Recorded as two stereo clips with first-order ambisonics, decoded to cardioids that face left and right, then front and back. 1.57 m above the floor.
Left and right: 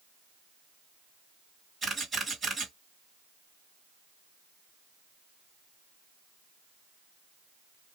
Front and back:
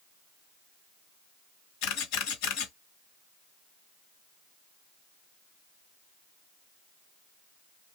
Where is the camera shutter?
15° right, 2 m.